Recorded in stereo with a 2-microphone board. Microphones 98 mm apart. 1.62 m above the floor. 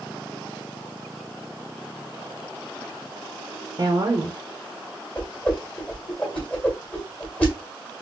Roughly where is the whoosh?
Centre.